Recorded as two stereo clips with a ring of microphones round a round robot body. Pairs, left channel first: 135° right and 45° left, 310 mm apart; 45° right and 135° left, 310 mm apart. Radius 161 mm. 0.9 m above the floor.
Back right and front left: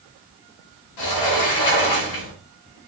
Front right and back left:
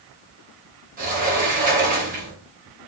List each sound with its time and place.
1.0 s a sliding door: 160° right, 0.8 m